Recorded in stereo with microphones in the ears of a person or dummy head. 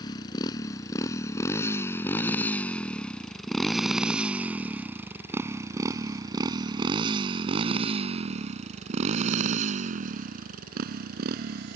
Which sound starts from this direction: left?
A motorcycle, at 0.0 s.